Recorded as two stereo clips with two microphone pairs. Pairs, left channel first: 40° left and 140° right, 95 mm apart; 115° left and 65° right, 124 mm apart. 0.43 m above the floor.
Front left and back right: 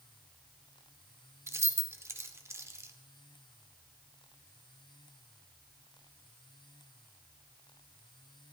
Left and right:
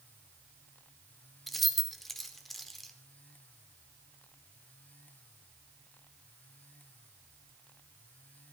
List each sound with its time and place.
1.5 s keys jangling: 150° right, 0.7 m